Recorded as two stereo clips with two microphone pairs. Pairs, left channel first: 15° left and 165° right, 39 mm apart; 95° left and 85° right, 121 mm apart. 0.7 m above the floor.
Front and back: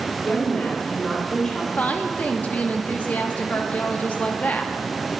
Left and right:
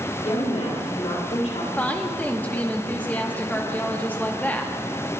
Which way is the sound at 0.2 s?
60° left.